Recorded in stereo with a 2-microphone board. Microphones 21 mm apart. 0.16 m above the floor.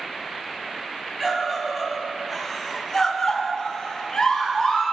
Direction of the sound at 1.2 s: 15° right (ahead or behind).